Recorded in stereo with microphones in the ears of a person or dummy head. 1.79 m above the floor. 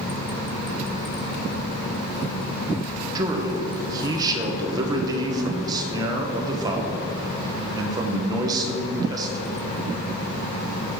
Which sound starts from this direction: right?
A man speaking, at 3.1 s.